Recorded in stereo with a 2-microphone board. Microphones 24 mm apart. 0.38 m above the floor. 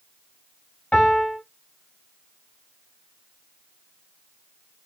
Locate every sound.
0.9 s a piano: 60° left (ahead or behind), 1.9 m